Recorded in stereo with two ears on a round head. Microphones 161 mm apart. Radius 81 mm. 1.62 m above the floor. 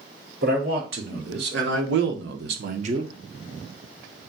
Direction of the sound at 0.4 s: 60° right (ahead or behind).